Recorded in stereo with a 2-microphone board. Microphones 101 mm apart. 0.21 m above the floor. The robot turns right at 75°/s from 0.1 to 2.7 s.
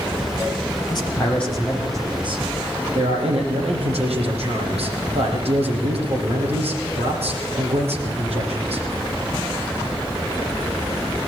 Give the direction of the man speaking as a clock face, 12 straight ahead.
8 o'clock.